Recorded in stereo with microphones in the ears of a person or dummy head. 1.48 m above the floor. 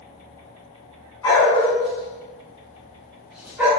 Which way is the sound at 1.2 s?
15° left (ahead or behind).